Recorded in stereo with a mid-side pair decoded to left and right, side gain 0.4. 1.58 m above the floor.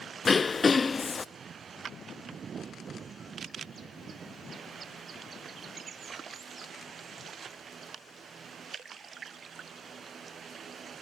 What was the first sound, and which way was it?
Throat clearing, 35° left.